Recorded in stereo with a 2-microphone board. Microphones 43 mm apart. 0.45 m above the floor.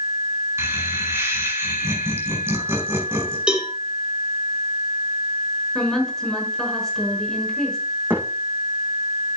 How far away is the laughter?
About 4.5 m.